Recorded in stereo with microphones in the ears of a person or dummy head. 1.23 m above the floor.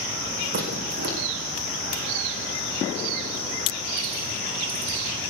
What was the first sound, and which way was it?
A squeak, 50° right (ahead or behind).